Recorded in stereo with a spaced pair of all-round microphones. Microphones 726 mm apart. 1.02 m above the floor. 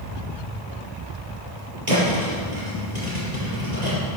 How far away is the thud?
About 5.5 m.